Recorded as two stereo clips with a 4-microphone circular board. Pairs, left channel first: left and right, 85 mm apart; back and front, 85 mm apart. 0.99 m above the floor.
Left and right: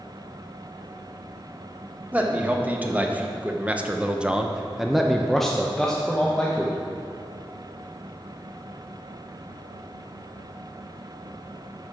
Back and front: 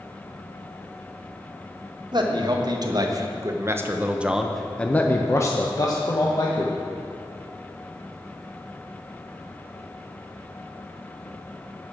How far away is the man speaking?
About 1.4 m.